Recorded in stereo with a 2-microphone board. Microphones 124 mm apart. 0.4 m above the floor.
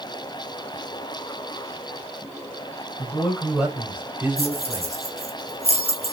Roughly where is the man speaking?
Centre.